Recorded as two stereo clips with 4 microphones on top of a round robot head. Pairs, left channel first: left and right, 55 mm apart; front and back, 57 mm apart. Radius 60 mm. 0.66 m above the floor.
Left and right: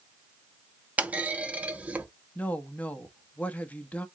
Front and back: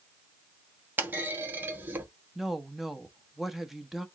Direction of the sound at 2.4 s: 100° left.